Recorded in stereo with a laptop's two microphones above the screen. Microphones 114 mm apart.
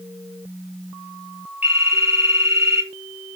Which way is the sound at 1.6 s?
15° right (ahead or behind).